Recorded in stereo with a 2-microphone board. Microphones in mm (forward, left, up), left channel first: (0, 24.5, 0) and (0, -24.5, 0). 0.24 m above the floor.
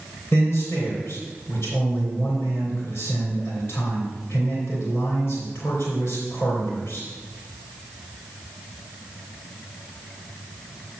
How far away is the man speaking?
About 3 m.